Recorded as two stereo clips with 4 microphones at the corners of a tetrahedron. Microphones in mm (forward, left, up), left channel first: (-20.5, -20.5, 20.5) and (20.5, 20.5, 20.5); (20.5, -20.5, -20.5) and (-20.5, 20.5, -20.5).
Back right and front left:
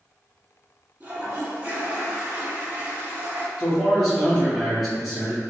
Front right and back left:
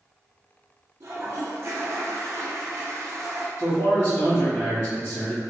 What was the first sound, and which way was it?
A toilet flushing, 105° left.